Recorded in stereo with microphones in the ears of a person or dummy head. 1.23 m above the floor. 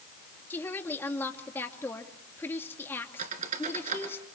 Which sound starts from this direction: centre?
A woman speaking, at 0.5 s.